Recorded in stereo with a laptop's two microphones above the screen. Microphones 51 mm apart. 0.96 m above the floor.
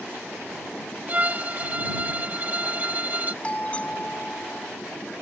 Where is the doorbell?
25° left (ahead or behind).